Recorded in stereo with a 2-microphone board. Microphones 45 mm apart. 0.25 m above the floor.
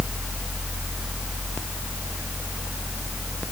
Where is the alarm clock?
I don't hear an alarm clock.